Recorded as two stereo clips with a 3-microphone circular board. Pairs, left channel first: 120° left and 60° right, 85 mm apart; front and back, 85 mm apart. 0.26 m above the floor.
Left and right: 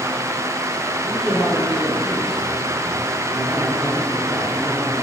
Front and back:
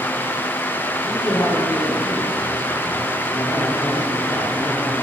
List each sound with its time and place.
1.0 s a man speaking: 30° left, 7 m